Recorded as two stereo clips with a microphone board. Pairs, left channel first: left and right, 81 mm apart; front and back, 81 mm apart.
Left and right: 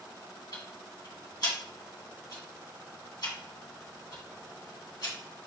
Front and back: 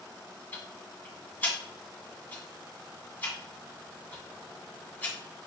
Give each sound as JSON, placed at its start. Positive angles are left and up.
{"t": 0.5, "sound": "ticking", "azimuth_deg": 65, "distance_m": 2.0}